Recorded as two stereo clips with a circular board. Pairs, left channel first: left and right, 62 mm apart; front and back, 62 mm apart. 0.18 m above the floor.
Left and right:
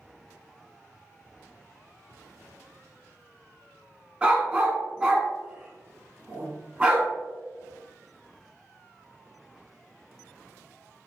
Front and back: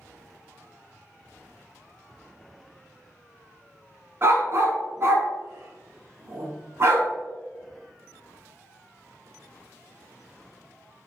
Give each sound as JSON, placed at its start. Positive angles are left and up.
{"t": 4.2, "sound": "a dog barking", "azimuth_deg": -160, "distance_m": 0.5}